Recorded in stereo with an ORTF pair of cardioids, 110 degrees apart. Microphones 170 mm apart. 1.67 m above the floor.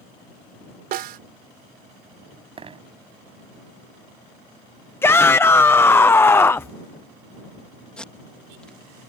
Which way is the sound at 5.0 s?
15° left.